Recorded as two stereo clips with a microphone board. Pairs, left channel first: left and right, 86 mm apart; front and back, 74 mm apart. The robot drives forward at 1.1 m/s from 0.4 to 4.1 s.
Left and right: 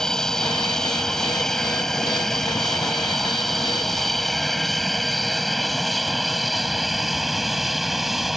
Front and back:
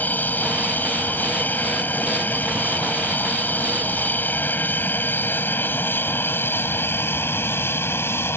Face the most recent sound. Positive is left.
turn(degrees=-5)